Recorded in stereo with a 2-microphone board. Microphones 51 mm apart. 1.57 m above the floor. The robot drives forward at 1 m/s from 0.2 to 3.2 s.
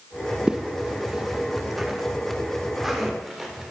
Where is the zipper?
15° right (ahead or behind), 0.8 m; by 3.7 s 5° right (ahead or behind), 3 m.